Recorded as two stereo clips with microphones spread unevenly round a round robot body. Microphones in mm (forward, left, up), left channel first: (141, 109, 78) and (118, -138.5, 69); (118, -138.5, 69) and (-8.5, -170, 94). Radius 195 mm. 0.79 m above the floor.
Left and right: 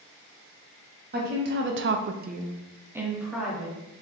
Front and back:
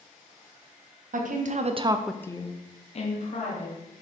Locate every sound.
1.1 s a woman speaking: 145° right, 0.9 m; by 3.8 s 5° right, 1.6 m